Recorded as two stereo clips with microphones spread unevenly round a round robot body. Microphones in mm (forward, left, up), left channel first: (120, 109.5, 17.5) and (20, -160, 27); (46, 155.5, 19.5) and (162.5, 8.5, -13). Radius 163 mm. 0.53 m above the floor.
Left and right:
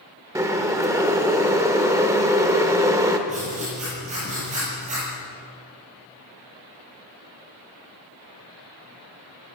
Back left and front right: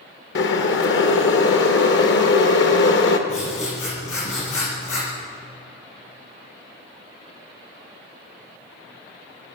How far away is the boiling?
About 1.3 m.